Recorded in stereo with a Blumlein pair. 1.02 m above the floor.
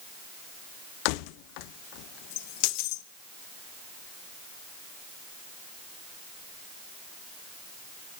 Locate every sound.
1.1 s keys jangling: 45° left, 0.5 m